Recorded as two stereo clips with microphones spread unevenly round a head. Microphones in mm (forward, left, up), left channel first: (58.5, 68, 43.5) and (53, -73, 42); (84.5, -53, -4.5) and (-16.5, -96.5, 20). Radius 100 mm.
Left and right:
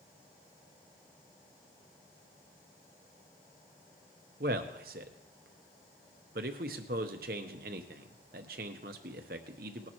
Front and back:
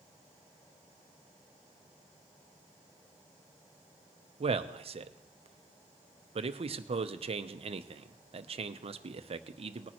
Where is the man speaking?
135° right, 0.8 m.